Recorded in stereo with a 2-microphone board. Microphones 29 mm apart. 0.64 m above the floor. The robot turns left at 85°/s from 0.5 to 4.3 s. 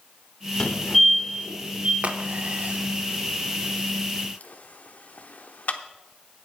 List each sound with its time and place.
0.6 s a fire alarm: 35° left (ahead or behind), 2.5 m; by 1.9 s 45° right (ahead or behind), 2.5 m
2.0 s a crack: 45° right (ahead or behind), 0.8 m; by 5.8 s 55° left (ahead or behind), 0.8 m